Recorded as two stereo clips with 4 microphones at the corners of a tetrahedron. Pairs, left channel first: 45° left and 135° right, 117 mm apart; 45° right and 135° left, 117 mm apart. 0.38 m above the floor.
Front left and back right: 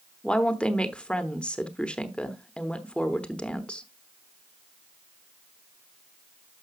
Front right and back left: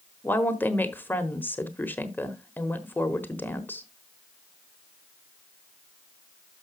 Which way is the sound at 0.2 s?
20° right.